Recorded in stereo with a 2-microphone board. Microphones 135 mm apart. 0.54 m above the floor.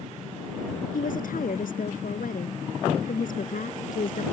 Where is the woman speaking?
80° left.